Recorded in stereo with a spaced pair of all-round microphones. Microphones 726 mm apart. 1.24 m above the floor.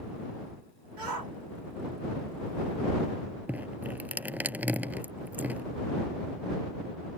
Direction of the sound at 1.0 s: 85° right.